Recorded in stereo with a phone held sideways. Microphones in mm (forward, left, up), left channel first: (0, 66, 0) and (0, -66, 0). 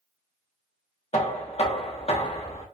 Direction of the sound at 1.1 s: 55° left (ahead or behind).